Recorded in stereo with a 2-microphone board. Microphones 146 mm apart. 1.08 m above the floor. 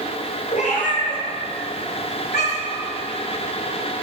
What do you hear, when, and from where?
0.5 s a cat meowing: 60° left (ahead or behind), 2.5 m; by 2.8 s 75° left (ahead or behind), 2.5 m